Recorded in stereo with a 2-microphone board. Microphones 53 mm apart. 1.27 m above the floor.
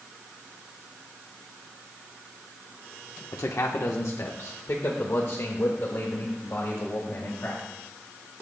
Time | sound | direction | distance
3.3 | a man speaking | 75° left (ahead or behind) | 1.0 m